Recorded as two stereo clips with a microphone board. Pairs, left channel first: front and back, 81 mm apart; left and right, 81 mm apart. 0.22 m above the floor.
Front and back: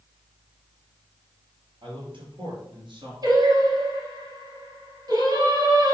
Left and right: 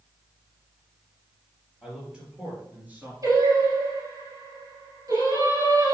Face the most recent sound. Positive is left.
turn(degrees=-140)